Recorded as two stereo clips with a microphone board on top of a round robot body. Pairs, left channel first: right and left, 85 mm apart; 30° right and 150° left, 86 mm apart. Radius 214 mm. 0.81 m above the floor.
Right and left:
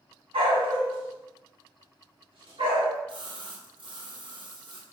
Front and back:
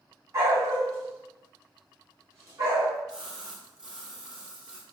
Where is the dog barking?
95° left, 2.5 m.